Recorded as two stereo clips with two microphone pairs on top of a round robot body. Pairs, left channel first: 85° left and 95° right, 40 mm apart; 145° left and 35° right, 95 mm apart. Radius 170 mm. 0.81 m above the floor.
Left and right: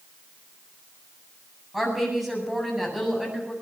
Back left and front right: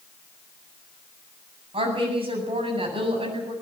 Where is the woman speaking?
10° right, 8 m.